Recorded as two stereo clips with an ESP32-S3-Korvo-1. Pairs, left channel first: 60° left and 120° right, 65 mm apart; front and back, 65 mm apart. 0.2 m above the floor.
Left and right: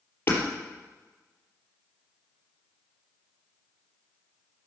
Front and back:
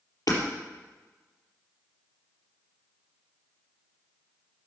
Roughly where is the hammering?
Ahead.